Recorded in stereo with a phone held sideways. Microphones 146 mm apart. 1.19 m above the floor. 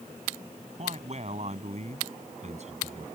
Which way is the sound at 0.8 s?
50° right (ahead or behind).